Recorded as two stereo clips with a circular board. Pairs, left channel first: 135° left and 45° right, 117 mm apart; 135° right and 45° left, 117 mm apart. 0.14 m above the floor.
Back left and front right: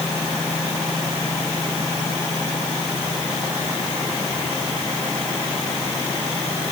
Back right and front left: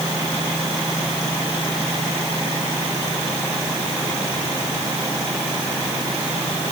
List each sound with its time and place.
Only background noise.